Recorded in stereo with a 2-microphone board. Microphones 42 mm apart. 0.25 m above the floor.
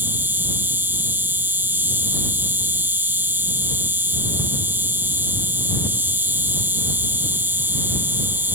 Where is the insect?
60° right (ahead or behind).